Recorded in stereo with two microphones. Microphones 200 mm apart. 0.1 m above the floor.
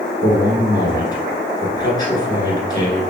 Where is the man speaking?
20° left (ahead or behind), 1.2 m.